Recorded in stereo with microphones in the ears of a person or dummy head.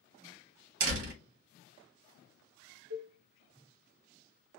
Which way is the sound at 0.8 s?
75° right (ahead or behind).